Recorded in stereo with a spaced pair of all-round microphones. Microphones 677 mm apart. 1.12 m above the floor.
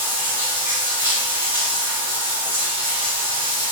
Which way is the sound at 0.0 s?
5° right (ahead or behind).